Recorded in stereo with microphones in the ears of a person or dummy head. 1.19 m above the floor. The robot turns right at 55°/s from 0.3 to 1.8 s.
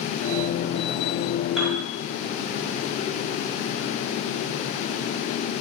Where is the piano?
Centre (ahead or behind), 6 m; by 1.8 s 15° right (ahead or behind), 6 m.